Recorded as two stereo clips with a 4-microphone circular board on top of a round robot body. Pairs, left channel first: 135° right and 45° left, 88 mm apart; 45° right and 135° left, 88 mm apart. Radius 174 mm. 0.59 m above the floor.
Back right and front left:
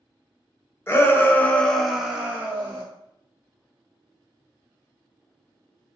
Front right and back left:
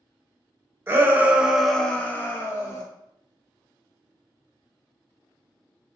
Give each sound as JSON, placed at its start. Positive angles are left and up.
{"t": 0.9, "sound": "a shout", "azimuth_deg": 180, "distance_m": 1.1}